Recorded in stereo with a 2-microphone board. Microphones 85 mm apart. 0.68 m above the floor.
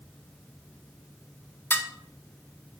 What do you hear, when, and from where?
1.7 s dishes clattering: 25° left (ahead or behind), 0.7 m